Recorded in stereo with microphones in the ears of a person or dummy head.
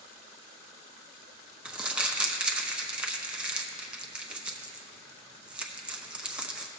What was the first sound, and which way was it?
Crumpling, 5° right (ahead or behind).